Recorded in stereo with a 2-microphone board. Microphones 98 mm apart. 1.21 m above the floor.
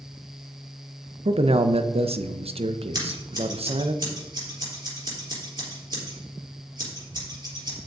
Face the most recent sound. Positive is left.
turn(degrees=-45)  # may be behind; listen again after turning